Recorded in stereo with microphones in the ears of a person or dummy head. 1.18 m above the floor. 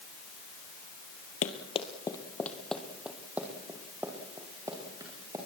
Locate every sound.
1.4 s running footsteps: 40° left (ahead or behind), 1.6 m; by 5.4 s 20° right (ahead or behind), 6 m